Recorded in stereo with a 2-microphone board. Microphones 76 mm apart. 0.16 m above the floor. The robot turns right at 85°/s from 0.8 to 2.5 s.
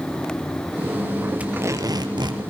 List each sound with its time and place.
1.4 s tape being pulled: 160° right, 2.5 m; by 2.4 s 75° right, 2.5 m